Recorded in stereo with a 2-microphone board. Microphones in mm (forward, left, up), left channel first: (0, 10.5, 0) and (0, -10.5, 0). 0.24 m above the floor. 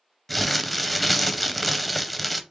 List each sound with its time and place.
0.3 s crumpling: centre (ahead or behind), 0.5 m